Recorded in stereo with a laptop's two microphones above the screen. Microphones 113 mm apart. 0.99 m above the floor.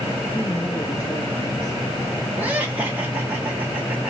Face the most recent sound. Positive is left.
turn(degrees=-15)  # may be behind; listen again after turning